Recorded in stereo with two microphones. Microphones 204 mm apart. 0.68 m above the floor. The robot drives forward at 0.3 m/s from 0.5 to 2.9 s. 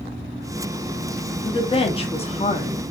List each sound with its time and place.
1.4 s a woman speaking: 25° left (ahead or behind), 0.7 m; by 2.8 s 30° left (ahead or behind), 0.6 m